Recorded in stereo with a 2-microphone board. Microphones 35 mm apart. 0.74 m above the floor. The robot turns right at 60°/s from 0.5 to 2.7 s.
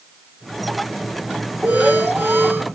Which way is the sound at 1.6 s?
135° right.